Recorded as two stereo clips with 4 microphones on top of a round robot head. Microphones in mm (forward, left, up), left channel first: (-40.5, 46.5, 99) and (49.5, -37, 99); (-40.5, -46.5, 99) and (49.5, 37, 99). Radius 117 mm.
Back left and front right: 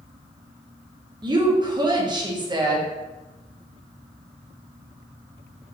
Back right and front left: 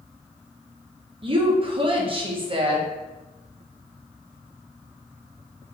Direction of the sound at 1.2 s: 5° left.